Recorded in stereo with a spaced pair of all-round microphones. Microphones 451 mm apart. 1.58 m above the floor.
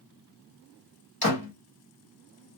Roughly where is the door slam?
Left.